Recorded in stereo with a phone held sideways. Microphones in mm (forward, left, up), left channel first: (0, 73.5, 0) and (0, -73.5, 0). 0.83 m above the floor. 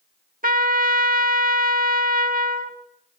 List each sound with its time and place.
0.4 s a trumpet: 70° right (ahead or behind), 1.5 m